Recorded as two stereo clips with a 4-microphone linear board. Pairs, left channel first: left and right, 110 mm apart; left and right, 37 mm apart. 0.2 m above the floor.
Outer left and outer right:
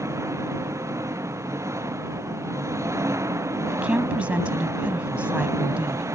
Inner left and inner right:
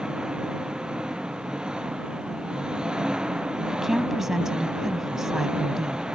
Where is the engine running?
25° right (ahead or behind).